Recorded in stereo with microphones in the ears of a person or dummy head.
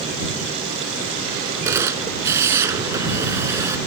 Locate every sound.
1.6 s a camera shutter: 20° right (ahead or behind)